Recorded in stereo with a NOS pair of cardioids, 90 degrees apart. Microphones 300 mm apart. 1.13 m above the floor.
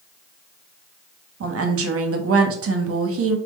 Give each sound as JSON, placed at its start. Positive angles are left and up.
{"t": 1.4, "sound": "a woman speaking", "azimuth_deg": -50, "distance_m": 1.0}